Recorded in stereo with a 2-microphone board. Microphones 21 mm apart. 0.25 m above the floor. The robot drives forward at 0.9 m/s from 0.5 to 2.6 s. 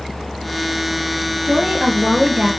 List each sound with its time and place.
1.4 s a woman speaking: 50° right (ahead or behind), 3.5 m; by 2.5 s 40° right (ahead or behind), 4.5 m